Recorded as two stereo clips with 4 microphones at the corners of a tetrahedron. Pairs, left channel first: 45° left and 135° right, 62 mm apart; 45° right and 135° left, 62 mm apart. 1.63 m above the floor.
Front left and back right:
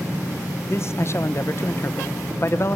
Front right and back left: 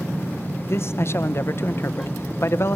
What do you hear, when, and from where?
0.7 s a man speaking: straight ahead, 1.2 m